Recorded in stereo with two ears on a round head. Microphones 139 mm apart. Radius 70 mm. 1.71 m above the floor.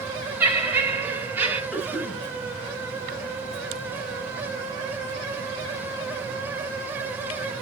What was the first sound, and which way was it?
Laughter, 15° right (ahead or behind).